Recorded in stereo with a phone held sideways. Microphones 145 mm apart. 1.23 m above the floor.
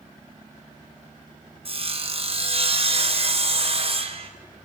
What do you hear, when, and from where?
1.6 s sawing: 45° right (ahead or behind), 0.8 m